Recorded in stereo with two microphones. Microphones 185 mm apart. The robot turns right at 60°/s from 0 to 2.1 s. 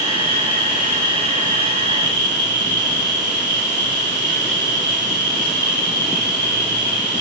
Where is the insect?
140° left, 0.8 m; by 7.2 s 95° right, 0.8 m.